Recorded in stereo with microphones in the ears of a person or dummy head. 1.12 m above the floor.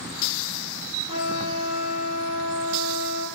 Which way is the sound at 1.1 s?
30° right (ahead or behind).